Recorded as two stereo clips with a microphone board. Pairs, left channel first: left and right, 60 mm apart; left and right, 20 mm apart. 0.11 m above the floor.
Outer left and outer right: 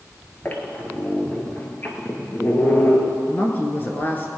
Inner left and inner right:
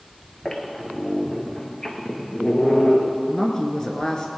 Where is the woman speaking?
35° left (ahead or behind), 1.4 m.